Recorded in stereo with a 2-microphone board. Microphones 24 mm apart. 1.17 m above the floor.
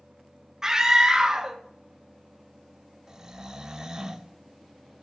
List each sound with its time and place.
0.6 s a scream: 30° right (ahead or behind), 0.8 m
3.1 s snoring: 20° right (ahead or behind), 0.5 m